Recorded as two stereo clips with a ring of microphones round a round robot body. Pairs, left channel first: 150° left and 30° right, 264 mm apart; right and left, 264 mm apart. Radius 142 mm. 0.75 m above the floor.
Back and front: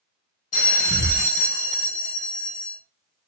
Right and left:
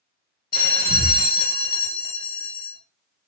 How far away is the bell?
About 0.9 m.